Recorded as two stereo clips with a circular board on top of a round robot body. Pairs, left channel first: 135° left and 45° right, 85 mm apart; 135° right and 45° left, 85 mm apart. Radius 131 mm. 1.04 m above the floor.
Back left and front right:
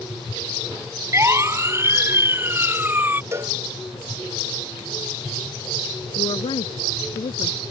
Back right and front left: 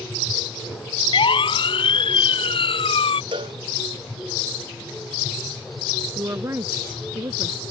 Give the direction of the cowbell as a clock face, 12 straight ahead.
12 o'clock.